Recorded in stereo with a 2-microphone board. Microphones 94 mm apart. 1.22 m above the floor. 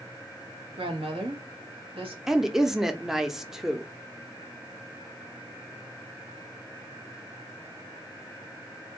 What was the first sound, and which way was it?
A woman speaking, 80° right.